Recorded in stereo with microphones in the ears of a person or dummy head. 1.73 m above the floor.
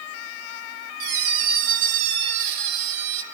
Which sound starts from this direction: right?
A squeak, at 1.0 s.